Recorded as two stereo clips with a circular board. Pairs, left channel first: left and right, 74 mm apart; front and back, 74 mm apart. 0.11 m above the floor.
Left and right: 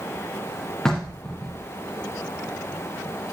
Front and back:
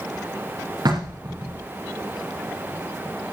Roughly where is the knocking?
Behind.